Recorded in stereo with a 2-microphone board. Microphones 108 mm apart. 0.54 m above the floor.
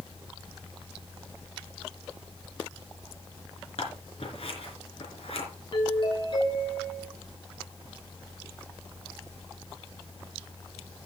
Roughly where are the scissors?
Left.